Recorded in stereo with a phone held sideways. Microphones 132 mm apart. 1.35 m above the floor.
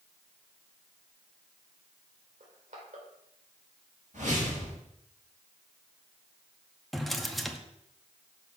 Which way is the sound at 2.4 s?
70° right (ahead or behind).